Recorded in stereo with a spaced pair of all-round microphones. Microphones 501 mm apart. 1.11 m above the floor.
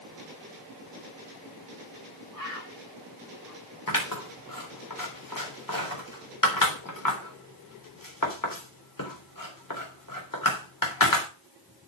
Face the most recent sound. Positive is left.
turn(degrees=40)  # may be behind; listen again after turning